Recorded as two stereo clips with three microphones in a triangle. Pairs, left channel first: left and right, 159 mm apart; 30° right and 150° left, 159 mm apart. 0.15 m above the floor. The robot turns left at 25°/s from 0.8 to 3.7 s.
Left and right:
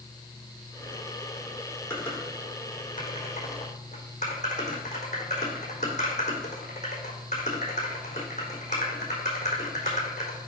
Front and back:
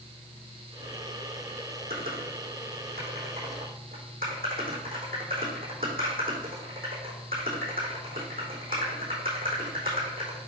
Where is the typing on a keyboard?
175° left, 4 m; by 10.4 s 130° left, 4 m.